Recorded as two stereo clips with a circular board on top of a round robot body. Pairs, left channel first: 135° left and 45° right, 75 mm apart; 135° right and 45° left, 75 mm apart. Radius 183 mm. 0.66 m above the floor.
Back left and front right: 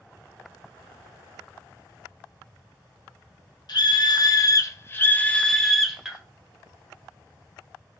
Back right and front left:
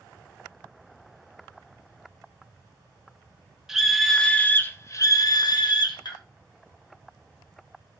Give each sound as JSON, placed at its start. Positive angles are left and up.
{"t": 3.7, "sound": "a scream", "azimuth_deg": 130, "distance_m": 0.9}